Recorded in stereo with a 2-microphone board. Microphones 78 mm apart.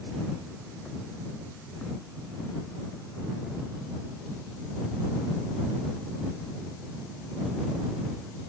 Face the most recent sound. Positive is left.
No sound to turn to.